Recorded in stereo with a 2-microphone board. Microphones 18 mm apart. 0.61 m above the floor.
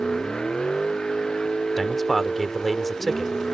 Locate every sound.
0.0 s a vehicle: 55° left (ahead or behind); by 3.5 s 50° left (ahead or behind)
1.8 s a man speaking: 10° left (ahead or behind)